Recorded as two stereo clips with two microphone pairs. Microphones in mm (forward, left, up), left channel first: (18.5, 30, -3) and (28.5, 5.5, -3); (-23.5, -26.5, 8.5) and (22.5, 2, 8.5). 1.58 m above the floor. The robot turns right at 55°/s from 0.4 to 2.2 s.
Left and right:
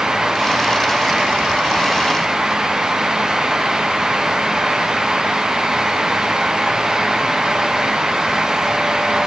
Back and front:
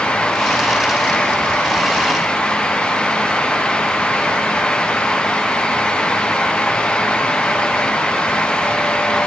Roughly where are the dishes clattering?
No dishes clattering in this recording.